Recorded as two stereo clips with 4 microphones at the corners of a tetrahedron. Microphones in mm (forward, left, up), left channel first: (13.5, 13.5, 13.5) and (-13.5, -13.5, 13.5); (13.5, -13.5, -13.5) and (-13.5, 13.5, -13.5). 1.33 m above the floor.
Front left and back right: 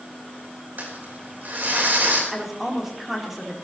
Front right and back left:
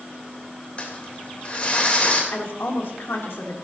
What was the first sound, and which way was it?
Crumpling, 100° right.